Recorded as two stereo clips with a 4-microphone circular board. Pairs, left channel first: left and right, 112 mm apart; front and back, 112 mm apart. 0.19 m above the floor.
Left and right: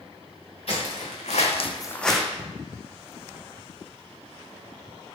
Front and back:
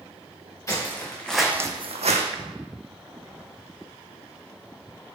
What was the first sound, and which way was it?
Footsteps, 65° left.